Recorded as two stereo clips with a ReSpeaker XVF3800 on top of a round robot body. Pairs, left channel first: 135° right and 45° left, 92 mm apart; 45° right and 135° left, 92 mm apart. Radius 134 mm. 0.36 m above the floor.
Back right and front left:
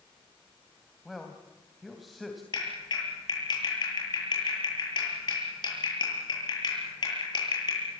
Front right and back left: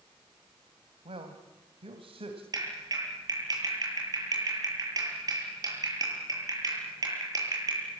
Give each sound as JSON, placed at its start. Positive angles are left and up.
{"t": 1.1, "sound": "a man speaking", "azimuth_deg": 135, "distance_m": 3.0}
{"t": 2.5, "sound": "a clap", "azimuth_deg": -175, "distance_m": 9.5}